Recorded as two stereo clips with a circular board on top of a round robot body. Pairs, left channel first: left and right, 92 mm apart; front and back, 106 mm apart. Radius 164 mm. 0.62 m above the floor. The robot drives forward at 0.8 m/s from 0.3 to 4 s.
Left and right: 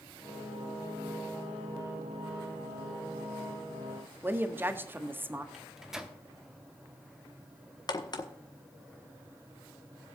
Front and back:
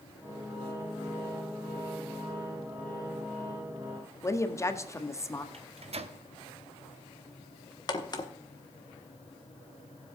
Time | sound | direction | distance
4.2 | a woman speaking | 40° right | 1.3 m
5.5 | a microwave | 175° right | 1.2 m
7.9 | a crack | 50° left | 1.4 m